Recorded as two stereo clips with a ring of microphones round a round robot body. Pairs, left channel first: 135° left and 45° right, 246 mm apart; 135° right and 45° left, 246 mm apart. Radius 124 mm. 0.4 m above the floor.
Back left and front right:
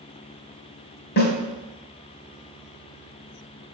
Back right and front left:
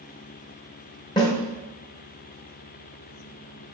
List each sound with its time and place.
1.2 s a snare drum: 160° left, 1.6 m